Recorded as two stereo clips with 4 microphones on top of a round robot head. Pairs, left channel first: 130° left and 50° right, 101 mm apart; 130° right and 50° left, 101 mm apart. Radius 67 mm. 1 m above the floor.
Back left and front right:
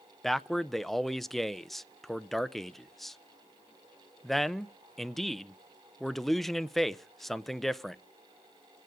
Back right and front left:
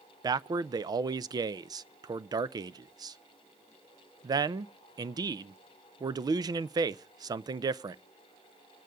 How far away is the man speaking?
About 0.5 m.